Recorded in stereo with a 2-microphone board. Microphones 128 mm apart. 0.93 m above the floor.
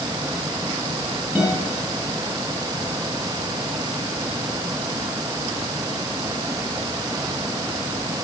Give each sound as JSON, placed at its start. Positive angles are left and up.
{"t": 1.4, "sound": "a guitar", "side_deg": -10, "distance_m": 7.0}